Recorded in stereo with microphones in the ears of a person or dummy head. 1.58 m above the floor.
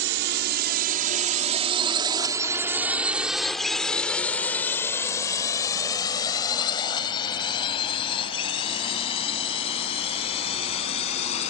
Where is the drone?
70° right (ahead or behind); by 11.5 s 35° left (ahead or behind).